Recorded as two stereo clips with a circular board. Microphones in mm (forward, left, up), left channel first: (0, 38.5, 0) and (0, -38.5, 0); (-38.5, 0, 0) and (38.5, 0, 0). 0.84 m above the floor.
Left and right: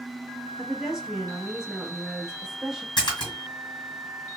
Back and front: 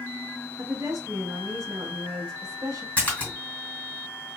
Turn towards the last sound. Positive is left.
turn(degrees=110)